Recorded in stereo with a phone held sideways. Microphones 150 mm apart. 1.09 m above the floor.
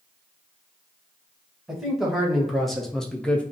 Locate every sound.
1.7 s a man speaking: centre (ahead or behind), 1.2 m; by 3.4 s 10° left (ahead or behind), 0.5 m